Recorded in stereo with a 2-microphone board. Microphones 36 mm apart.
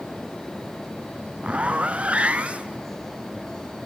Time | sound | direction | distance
1.4 | a zipper | 35° right (ahead or behind) | 1.0 m